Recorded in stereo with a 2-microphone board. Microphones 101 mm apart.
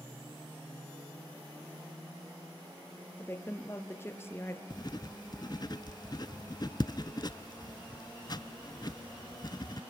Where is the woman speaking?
25° left (ahead or behind), 2.5 m.